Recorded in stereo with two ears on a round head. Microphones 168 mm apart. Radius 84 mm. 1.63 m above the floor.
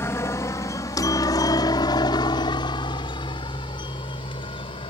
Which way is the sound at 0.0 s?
15° left (ahead or behind).